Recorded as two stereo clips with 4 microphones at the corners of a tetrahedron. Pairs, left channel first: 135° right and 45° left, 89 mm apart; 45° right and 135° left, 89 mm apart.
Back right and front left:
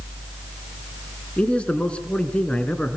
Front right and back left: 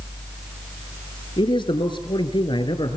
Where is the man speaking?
60° right, 2.5 m.